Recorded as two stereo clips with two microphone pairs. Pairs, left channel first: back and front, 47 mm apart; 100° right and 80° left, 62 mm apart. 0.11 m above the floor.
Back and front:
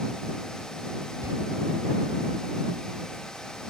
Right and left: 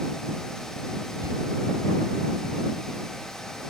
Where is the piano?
I don't hear a piano.